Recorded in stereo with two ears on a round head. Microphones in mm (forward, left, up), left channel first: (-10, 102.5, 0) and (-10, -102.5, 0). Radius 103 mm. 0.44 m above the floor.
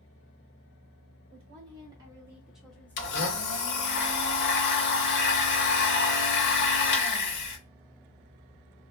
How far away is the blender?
About 0.8 m.